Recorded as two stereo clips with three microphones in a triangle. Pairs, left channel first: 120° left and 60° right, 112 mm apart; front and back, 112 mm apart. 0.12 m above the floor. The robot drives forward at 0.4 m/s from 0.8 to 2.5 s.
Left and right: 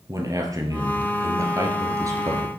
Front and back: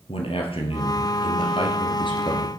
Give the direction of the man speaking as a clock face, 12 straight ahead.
12 o'clock.